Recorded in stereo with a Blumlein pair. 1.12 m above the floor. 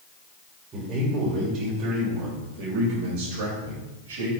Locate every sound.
0.7 s a man speaking: 25° right, 3.5 m; by 4.3 s 65° right, 5 m